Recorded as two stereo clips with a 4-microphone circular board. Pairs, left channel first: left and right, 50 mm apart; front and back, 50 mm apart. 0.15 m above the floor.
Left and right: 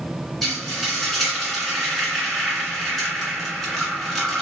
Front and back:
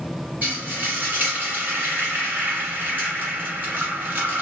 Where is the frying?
170° left, 1.7 m.